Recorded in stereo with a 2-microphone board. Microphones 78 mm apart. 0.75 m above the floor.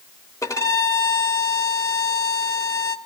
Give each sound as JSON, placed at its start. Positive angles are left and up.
{"t": 0.4, "sound": "a violin", "side_deg": 45, "distance_m": 1.1}